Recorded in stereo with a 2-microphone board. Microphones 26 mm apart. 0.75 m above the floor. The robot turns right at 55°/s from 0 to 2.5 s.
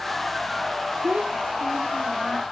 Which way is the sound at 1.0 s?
110° right.